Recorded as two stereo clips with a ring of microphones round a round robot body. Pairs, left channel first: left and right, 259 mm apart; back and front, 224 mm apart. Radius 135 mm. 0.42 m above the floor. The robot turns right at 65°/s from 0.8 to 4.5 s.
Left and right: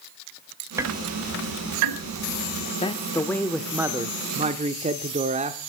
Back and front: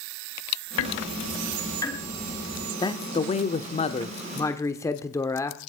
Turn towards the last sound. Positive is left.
turn(degrees=-120)